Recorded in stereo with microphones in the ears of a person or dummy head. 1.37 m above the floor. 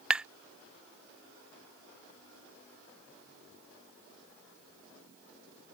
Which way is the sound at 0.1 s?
10° right (ahead or behind).